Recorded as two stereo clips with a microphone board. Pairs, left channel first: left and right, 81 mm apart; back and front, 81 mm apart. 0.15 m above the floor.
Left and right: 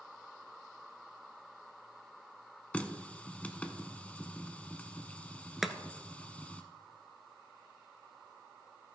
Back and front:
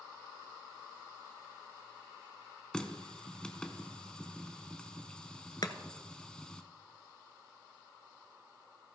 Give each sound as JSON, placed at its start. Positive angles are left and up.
{"t": 2.7, "sound": "a running tap", "azimuth_deg": 120, "distance_m": 0.7}
{"t": 5.6, "sound": "chopping", "azimuth_deg": -175, "distance_m": 0.8}